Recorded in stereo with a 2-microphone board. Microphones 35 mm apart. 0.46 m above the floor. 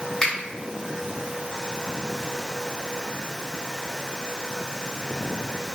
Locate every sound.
0.2 s a finger snap: 10° left (ahead or behind), 1.7 m